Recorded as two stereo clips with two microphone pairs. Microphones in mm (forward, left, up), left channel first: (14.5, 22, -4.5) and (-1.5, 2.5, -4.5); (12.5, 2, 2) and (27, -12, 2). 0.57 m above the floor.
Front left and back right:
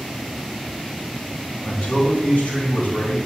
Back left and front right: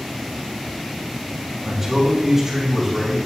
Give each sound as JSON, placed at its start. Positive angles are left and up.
{"t": 1.6, "sound": "a man speaking", "azimuth_deg": 45, "distance_m": 3.5}